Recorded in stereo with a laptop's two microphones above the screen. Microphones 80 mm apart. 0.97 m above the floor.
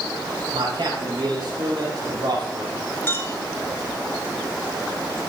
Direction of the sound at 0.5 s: 80° right.